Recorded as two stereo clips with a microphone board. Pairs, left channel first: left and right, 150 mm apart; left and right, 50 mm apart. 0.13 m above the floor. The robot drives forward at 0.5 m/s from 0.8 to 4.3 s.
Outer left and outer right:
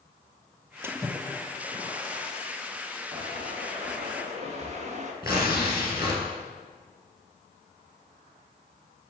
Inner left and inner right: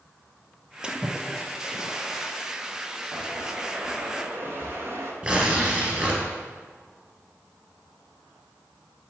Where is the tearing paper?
25° right (ahead or behind), 2.0 m.